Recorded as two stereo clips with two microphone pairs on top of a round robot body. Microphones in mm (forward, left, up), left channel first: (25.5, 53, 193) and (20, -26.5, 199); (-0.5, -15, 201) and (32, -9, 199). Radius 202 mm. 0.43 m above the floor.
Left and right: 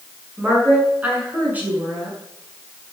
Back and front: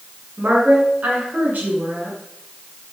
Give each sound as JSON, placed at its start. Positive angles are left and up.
{"t": 0.4, "sound": "a woman speaking", "azimuth_deg": -25, "distance_m": 8.0}